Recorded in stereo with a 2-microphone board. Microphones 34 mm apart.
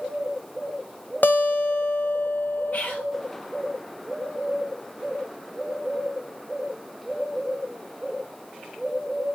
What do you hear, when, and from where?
1.2 s a guitar: 60° left (ahead or behind), 0.6 m
2.7 s whispering: 50° left (ahead or behind), 0.8 m